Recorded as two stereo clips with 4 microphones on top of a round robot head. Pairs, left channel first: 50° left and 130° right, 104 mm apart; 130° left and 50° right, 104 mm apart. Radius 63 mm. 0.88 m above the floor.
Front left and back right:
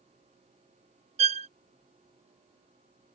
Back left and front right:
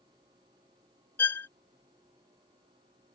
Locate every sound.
1.2 s a violin: 155° right